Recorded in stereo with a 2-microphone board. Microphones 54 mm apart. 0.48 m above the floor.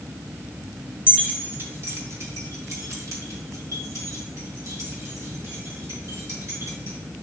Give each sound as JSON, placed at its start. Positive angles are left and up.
{"t": 1.1, "sound": "keys jangling", "side_deg": -30, "distance_m": 1.5}